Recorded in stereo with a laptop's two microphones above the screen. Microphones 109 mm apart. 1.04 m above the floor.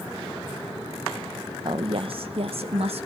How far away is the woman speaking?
About 0.7 m.